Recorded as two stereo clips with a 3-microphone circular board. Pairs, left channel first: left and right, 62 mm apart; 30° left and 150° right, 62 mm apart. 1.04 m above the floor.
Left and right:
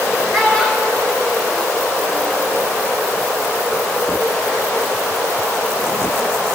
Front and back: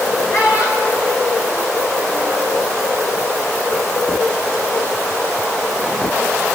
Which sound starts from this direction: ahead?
A child speaking, at 0.3 s.